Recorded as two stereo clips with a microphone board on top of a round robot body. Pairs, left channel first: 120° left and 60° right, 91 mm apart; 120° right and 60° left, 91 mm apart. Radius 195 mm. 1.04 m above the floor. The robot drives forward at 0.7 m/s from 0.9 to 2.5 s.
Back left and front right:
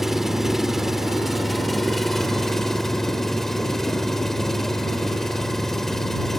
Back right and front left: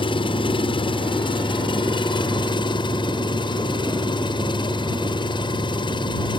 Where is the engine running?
150° right; by 6.4 s 155° right.